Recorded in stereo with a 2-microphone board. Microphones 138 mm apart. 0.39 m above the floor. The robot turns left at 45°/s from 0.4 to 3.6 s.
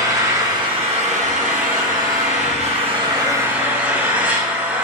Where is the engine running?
25° right, 3 m; by 4.8 s 170° right, 3 m.